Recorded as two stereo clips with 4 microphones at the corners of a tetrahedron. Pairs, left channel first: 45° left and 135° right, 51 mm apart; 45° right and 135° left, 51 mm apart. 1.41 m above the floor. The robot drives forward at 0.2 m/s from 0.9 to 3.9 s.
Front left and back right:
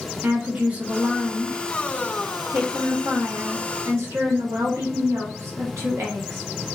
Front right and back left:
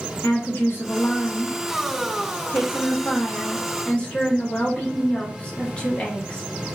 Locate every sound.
0.2 s a woman speaking: 75° right, 0.9 m; by 6.4 s 110° right, 0.9 m